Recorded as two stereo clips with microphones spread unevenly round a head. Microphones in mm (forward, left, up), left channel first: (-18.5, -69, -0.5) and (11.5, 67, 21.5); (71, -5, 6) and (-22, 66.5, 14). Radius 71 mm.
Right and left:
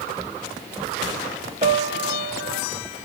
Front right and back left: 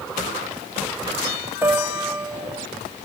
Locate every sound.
1.6 s a piano: 80° left, 0.9 m